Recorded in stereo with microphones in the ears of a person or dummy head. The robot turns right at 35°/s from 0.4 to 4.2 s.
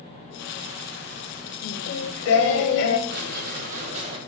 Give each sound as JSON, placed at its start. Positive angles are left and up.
{"t": 1.6, "sound": "singing", "azimuth_deg": 75, "distance_m": 0.9}
{"t": 3.1, "sound": "a squeak", "azimuth_deg": -70, "distance_m": 1.2}